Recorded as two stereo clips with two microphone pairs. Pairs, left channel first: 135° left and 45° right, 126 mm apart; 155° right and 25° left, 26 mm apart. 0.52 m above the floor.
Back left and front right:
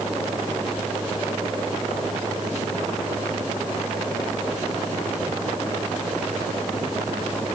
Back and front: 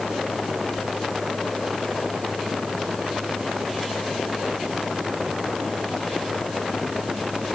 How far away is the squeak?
I don't hear a squeak.